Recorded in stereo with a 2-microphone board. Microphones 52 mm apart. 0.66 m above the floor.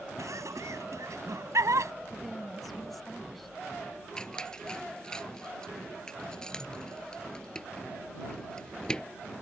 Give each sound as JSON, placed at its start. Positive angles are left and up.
{"t": 0.2, "sound": "laughter", "side_deg": -80}
{"t": 2.1, "sound": "a woman speaking", "side_deg": 5}
{"t": 4.2, "sound": "a squeak", "side_deg": 15}